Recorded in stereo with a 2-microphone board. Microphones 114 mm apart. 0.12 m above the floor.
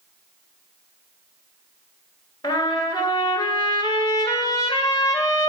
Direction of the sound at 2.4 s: 35° left (ahead or behind).